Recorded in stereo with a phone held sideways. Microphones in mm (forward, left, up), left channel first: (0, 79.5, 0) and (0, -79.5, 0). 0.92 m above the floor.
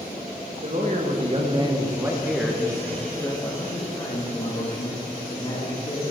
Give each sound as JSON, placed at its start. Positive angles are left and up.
{"t": 0.6, "sound": "a man speaking", "side_deg": -50, "distance_m": 1.1}